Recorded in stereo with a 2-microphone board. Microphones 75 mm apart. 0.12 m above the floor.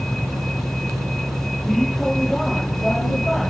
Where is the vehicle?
5° left (ahead or behind); by 3.5 s centre (ahead or behind).